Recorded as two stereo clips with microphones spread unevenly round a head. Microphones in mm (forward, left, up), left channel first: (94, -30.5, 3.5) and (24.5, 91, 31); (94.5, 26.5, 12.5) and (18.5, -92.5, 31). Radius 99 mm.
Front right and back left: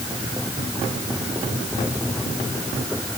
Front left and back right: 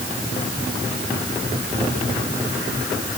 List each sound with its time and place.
Only background noise.